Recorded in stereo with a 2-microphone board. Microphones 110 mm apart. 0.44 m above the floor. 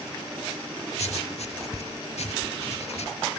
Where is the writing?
85° left, 0.8 m.